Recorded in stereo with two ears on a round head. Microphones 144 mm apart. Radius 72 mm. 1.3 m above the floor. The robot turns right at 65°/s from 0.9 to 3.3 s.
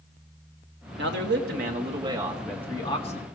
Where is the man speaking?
100° right, 2 m; by 3.3 s 55° left, 2 m.